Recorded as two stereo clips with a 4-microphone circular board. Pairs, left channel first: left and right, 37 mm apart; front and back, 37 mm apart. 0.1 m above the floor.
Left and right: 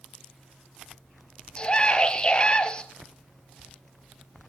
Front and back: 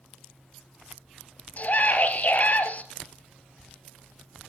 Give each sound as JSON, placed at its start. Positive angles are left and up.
{"t": 1.6, "sound": "a scream", "azimuth_deg": 30, "distance_m": 2.0}